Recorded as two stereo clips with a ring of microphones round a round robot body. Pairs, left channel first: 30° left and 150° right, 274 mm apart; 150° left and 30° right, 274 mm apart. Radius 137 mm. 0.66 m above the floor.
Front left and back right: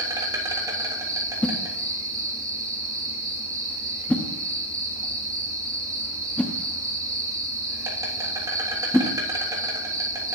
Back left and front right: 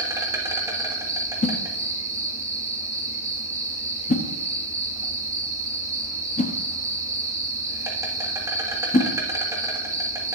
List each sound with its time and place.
0.0 s an insect: 90° right, 1.4 m
1.4 s a whoosh: 110° left, 0.7 m